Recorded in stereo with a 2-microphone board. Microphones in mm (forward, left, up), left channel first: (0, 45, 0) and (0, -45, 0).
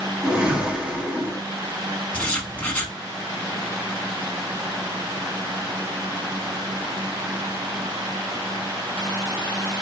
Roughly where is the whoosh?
Centre.